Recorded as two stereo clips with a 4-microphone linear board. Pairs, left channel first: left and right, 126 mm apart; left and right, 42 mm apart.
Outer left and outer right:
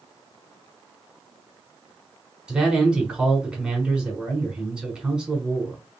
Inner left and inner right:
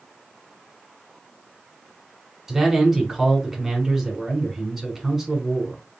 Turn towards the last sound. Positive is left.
turn(degrees=-5)  # may be behind; listen again after turning